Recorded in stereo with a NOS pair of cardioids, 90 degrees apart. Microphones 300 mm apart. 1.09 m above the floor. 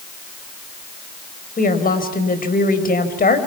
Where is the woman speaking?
30° left, 5 m.